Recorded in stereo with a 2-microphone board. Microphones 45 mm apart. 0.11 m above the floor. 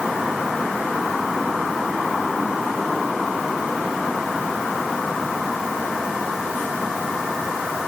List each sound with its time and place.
Only background noise.